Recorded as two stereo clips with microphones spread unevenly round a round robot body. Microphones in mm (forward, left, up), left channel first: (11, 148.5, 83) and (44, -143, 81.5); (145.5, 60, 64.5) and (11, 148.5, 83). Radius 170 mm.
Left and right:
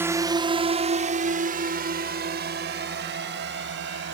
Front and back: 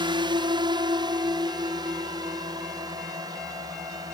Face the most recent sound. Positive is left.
turn(degrees=-135)